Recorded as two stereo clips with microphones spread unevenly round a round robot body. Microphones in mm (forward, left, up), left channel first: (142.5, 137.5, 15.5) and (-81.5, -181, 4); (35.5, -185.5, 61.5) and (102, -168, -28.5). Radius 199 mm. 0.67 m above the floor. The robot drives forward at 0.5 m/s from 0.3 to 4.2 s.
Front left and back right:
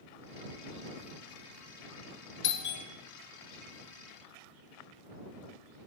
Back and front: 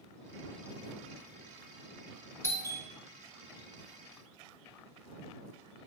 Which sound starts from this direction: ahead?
A doorbell, at 2.4 s.